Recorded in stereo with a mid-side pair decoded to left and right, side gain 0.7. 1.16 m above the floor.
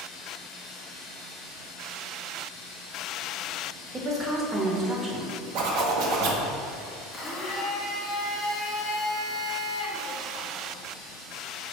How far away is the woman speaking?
About 0.8 m.